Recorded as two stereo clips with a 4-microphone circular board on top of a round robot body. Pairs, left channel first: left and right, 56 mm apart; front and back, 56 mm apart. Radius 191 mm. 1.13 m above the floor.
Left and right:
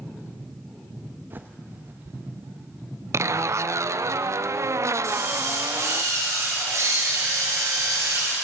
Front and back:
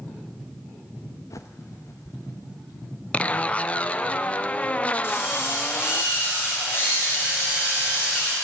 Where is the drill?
50° right, 7.5 m.